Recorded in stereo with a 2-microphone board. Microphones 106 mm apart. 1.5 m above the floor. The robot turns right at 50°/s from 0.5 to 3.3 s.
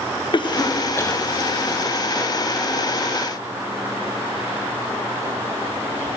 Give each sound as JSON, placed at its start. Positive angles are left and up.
{"t": 0.3, "sound": "a cough", "side_deg": 45, "distance_m": 0.5}